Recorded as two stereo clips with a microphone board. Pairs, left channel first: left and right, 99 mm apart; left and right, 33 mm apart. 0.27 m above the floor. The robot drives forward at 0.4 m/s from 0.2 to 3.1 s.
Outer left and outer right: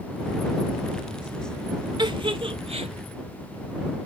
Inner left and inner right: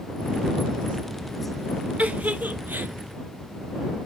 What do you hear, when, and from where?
2.0 s a giggle: 50° right (ahead or behind), 0.6 m; by 2.9 s 85° right, 0.5 m